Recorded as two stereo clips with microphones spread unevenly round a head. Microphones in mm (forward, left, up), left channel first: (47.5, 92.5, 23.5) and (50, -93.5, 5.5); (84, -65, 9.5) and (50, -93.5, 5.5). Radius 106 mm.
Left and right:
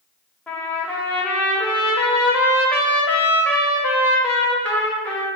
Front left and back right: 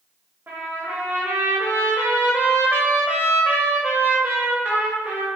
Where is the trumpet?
175° left, 0.6 m.